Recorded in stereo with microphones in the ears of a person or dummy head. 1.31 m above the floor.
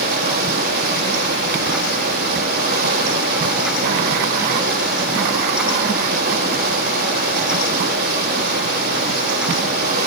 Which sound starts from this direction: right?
Running water, at 0.0 s.